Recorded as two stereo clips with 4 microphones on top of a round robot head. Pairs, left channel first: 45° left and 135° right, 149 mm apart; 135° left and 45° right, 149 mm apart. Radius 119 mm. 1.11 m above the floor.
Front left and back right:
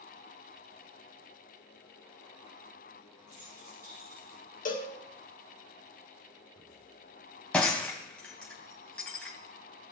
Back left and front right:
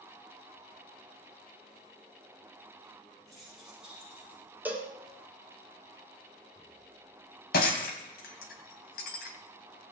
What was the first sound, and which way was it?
Keys jangling, 135° right.